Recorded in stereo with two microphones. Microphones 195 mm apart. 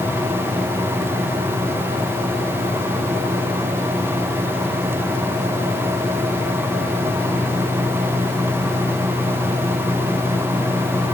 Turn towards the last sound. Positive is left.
No sound to turn to.